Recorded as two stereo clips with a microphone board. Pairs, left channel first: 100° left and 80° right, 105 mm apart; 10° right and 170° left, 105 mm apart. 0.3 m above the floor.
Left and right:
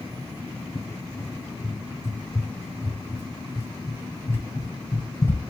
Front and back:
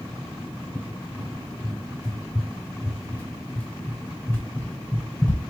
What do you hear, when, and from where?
0.8 s a cupboard door: 55° left, 1.0 m